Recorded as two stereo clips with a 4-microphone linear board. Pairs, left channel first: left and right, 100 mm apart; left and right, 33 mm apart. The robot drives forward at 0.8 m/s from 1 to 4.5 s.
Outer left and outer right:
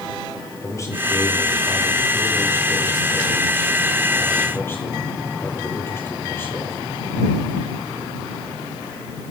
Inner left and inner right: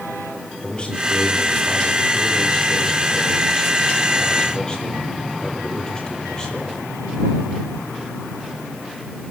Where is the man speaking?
30° left (ahead or behind), 7.5 m; by 6.8 s 25° left (ahead or behind), 10 m.